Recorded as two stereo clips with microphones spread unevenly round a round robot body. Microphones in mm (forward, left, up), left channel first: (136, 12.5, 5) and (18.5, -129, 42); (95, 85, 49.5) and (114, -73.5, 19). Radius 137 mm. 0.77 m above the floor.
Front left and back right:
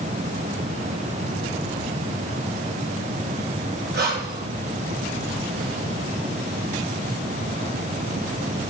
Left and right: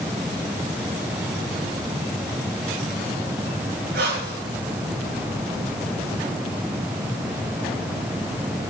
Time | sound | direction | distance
3.9 | breathing | 100° right | 5.5 m